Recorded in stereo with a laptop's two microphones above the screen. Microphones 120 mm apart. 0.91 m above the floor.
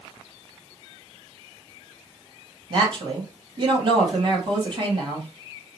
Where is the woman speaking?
40° right (ahead or behind), 1.3 m.